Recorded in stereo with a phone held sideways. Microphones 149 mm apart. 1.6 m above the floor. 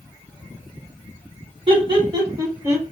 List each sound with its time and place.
1.7 s laughter: 35° right (ahead or behind), 1.8 m; by 2.9 s 10° right (ahead or behind), 1.5 m